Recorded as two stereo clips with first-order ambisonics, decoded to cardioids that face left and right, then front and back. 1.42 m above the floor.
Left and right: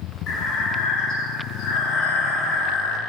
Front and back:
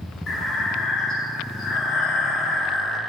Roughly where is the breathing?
Ahead left.